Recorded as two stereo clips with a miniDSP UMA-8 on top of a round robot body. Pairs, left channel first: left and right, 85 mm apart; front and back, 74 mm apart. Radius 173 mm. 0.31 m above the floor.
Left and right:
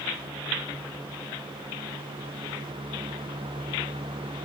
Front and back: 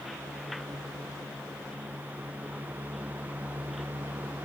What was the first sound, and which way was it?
Only background noise.